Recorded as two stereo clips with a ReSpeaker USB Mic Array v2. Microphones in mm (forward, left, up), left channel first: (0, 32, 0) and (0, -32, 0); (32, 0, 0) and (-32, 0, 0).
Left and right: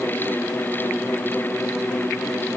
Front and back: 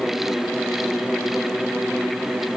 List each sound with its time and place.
Only background noise.